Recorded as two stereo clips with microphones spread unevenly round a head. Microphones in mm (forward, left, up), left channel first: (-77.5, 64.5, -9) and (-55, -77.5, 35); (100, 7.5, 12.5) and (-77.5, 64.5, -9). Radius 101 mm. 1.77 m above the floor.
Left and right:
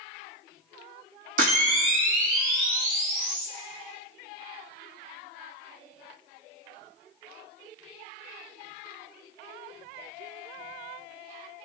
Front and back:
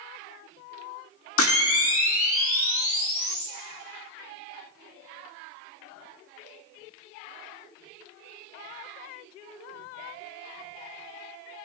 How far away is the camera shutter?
About 1.3 m.